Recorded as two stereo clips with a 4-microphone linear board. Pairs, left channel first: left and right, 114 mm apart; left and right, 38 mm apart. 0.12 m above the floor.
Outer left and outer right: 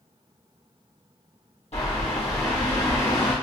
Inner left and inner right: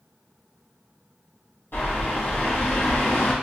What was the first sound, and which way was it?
A bird, 70° left (ahead or behind).